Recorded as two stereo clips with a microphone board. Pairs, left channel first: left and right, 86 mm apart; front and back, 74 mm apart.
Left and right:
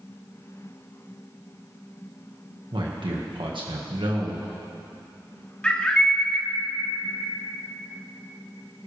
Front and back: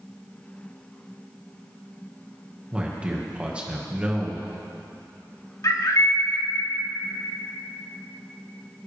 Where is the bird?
15° left, 1.4 m.